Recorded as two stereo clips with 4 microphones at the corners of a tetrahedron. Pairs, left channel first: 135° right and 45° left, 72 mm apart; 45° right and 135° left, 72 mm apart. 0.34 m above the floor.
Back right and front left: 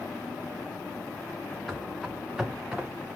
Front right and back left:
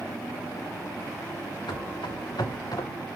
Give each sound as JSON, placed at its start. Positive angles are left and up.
{"t": 1.7, "sound": "running footsteps", "azimuth_deg": -50, "distance_m": 2.5}